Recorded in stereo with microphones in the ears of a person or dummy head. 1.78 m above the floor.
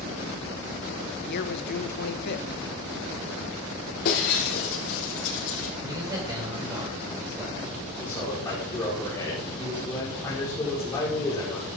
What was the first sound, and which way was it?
A man speaking, 55° left (ahead or behind).